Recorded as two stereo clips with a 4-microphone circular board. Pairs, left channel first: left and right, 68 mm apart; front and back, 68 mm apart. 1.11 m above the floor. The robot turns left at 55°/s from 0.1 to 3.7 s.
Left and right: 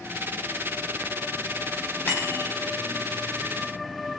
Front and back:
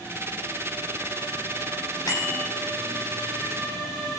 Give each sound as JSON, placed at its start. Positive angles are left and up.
{"t": 2.1, "sound": "a bicycle bell", "azimuth_deg": 30, "distance_m": 5.5}